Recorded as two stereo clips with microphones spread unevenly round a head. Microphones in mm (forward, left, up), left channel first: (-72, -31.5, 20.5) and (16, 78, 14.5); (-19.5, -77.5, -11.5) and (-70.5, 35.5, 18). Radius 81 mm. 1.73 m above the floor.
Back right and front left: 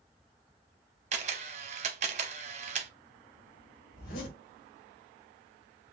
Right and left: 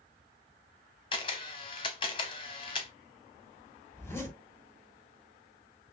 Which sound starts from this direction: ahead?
A camera shutter, at 1.1 s.